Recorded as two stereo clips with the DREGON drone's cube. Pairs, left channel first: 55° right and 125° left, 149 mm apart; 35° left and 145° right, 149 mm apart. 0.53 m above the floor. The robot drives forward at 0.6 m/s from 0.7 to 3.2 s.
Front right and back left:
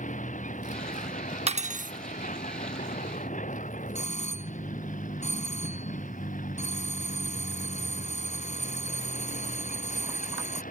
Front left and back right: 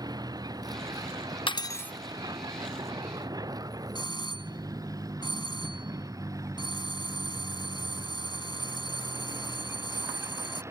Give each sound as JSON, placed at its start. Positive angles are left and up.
{"t": 0.0, "sound": "a vehicle", "azimuth_deg": -85}
{"t": 1.5, "sound": "cutlery clinking", "azimuth_deg": 85}
{"t": 4.0, "sound": "a doorbell", "azimuth_deg": -25}